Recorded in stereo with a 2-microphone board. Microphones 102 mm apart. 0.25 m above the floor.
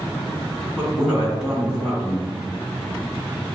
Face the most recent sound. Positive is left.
turn(degrees=-5)  # may be behind; listen again after turning